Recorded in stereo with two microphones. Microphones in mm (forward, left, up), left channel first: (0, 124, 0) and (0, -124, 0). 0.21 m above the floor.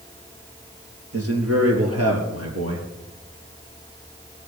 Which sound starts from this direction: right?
A man speaking, at 1.1 s.